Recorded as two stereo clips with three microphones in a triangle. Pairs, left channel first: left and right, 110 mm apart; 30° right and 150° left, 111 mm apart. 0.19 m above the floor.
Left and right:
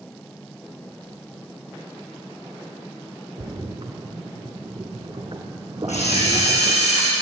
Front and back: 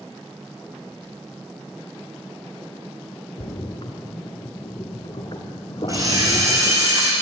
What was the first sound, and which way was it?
A splash, 60° right.